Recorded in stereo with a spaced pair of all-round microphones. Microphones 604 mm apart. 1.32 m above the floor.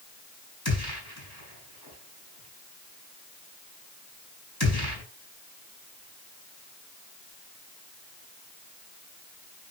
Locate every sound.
0.7 s a gunshot: 35° left (ahead or behind), 7.5 m